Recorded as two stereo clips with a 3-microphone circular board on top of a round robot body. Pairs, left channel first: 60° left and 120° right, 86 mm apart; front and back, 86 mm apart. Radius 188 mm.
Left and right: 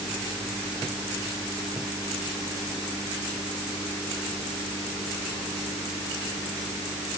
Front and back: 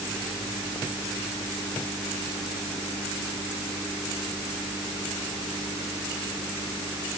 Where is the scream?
I don't hear a scream.